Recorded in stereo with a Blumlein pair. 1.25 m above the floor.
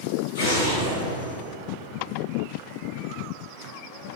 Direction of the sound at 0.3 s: 60° left.